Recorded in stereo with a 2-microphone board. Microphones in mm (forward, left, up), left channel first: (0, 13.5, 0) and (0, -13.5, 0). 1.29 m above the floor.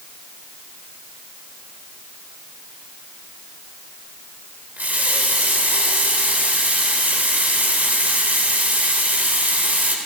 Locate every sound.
4.8 s a running tap: 75° right (ahead or behind), 3.5 m